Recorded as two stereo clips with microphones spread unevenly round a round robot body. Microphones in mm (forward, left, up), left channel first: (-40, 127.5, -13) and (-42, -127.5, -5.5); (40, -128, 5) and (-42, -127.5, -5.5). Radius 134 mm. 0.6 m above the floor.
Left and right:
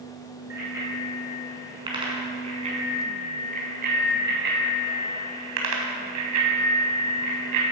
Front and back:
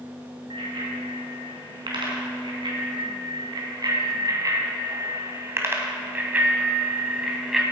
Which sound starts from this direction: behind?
A bicycle bell, at 0.5 s.